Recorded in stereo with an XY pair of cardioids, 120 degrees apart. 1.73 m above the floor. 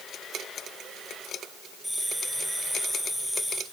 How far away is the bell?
About 8 m.